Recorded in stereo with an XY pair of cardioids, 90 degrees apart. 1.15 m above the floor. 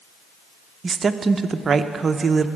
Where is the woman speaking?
45° right, 0.6 m.